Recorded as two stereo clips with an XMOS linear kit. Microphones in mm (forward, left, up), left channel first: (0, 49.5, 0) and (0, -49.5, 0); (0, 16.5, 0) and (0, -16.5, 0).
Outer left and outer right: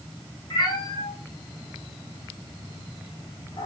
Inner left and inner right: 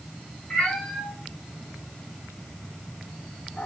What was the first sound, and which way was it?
A cat meowing, 45° left (ahead or behind).